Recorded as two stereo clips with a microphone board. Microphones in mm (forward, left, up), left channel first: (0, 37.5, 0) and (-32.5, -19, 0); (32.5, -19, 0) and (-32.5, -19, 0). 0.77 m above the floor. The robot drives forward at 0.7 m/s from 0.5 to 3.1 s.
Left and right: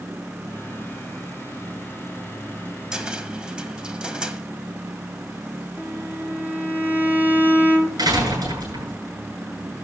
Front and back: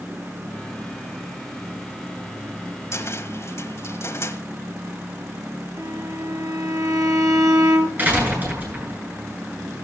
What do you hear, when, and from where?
2.9 s a cupboard door: 40° right, 1.7 m; by 4.4 s 45° right, 1.6 m
5.8 s a violin: 175° left, 3.5 m
8.0 s a door slam: 115° right, 8.5 m